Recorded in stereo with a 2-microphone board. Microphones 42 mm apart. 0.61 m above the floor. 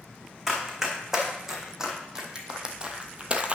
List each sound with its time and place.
0.5 s running footsteps: 5° right (ahead or behind), 2 m; by 3.5 s 30° right (ahead or behind), 0.8 m